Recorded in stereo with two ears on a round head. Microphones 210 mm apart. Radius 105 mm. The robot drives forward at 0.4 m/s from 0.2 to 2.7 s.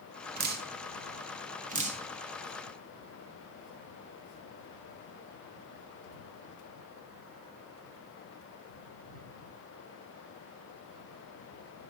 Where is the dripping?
45° right (ahead or behind), 1.2 m; by 2.0 s 30° right (ahead or behind), 1.6 m.